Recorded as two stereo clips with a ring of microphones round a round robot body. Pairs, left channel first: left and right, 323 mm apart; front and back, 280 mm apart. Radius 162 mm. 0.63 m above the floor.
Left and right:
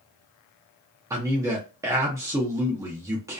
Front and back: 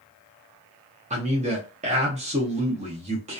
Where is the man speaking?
160° right, 0.5 m.